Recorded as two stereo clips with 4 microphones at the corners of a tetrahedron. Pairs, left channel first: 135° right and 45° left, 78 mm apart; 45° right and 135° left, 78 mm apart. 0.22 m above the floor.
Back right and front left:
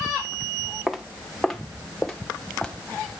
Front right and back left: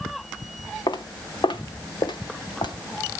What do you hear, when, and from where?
0.9 s footsteps: 40° right, 1.6 m; by 2.7 s 55° right, 2.5 m